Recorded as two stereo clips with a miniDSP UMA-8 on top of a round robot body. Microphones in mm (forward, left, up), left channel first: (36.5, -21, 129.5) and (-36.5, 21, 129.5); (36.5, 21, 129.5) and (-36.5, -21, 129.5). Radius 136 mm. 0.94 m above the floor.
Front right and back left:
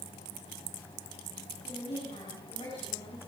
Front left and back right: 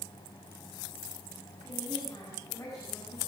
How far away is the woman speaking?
About 8.5 m.